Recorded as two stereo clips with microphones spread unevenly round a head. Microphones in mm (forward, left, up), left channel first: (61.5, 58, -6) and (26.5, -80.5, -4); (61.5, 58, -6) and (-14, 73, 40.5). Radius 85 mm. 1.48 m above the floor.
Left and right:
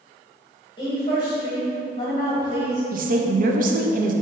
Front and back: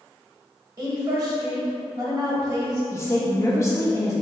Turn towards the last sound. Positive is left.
turn(degrees=-75)